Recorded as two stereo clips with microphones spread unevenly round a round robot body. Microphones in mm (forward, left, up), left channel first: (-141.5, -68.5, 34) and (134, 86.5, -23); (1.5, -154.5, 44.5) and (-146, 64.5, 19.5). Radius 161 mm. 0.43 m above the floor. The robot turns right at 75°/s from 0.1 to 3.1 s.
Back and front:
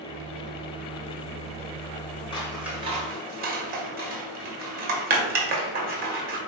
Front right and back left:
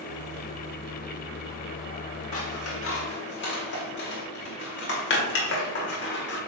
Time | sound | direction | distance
2.3 | scissors | 70° right | 1.7 m